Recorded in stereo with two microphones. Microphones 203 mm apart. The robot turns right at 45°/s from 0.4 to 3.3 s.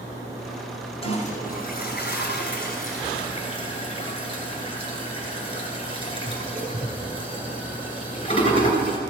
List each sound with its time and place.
1.0 s a toilet flushing: 30° left (ahead or behind), 2.5 m; by 9.0 s 25° left (ahead or behind), 2.5 m